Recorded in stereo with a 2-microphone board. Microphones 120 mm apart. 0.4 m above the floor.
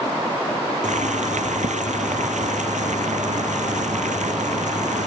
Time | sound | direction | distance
0.8 | boiling | 85° right | ?